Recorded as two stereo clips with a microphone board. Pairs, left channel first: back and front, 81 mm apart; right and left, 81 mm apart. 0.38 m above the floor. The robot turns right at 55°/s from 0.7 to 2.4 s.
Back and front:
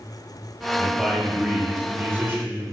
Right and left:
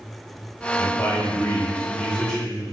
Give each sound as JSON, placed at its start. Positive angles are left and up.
{"t": 0.8, "sound": "a man speaking", "azimuth_deg": -95, "distance_m": 1.4}